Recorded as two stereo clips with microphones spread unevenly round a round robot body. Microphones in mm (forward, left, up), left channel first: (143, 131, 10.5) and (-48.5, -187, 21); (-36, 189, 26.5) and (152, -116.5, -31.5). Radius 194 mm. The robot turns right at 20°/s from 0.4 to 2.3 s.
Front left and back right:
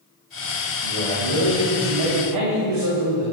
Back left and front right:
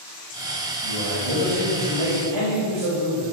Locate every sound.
0.8 s a man speaking: 110° right, 5.5 m; by 3.2 s 80° right, 5.5 m